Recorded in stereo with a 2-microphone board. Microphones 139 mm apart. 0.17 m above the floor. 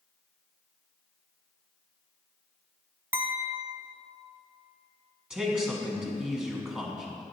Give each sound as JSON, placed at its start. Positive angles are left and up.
{"t": 3.1, "sound": "a clink", "side_deg": -15, "distance_m": 0.6}
{"t": 5.3, "sound": "a man speaking", "side_deg": -5, "distance_m": 1.1}